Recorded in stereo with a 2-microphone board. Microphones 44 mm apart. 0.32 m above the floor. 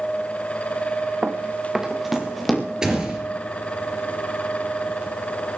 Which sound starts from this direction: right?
Running footsteps, at 1.2 s.